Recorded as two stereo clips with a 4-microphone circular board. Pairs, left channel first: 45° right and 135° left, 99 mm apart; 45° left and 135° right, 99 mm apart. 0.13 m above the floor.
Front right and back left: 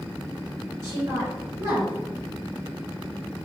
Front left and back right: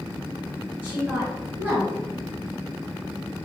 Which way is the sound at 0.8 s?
170° left.